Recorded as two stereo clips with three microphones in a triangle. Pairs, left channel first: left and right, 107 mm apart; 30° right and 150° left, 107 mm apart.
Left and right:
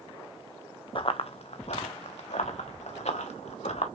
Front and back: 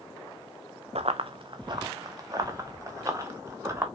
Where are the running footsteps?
130° left, 0.8 m; by 3.9 s 85° left, 2.5 m.